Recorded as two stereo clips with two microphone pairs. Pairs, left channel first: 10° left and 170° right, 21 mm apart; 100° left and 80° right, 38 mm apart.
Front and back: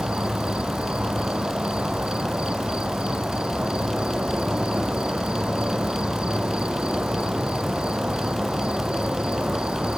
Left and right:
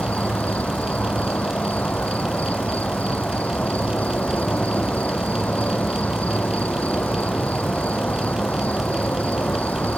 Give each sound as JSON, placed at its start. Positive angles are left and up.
{"t": 0.0, "sound": "an insect", "azimuth_deg": 150}